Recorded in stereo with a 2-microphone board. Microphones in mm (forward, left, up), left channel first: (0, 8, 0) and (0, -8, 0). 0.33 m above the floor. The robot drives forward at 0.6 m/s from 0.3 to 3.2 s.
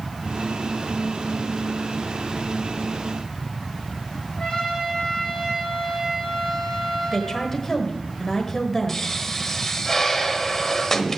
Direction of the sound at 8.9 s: 20° left (ahead or behind).